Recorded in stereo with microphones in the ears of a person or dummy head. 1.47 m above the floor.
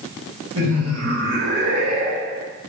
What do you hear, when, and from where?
0.6 s laughter: 80° right, 1.9 m